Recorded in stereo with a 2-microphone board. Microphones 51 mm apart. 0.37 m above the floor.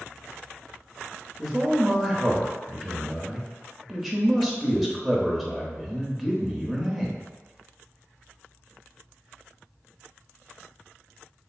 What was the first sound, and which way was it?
A man speaking, centre (ahead or behind).